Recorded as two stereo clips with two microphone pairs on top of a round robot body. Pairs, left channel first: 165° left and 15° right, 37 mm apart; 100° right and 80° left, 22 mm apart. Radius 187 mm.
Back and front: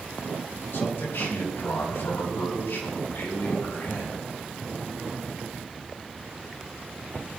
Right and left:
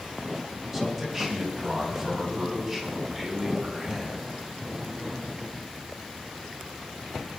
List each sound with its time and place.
0.7 s a man speaking: 170° left, 5 m; by 4.2 s 160° left, 7 m